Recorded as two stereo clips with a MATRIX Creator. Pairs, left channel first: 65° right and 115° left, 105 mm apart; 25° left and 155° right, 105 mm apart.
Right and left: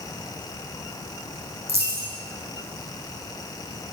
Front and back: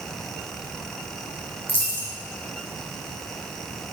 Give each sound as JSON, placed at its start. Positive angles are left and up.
{"t": 1.7, "sound": "a dropped coin", "azimuth_deg": 95, "distance_m": 4.0}